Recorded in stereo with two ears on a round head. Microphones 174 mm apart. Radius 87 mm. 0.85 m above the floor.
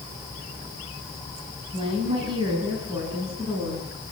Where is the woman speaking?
30° right (ahead or behind), 6.5 m; by 3.9 s 20° right (ahead or behind), 9 m.